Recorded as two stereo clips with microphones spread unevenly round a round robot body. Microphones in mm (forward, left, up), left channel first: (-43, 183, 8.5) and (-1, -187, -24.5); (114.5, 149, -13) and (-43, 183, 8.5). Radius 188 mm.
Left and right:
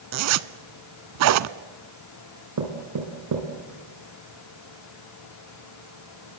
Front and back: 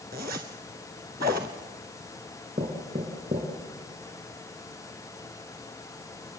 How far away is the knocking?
About 3 m.